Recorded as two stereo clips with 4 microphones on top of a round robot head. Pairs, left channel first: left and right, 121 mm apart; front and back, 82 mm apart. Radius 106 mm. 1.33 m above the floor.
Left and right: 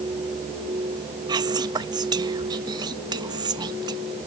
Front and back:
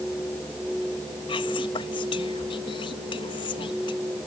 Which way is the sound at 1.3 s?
35° right.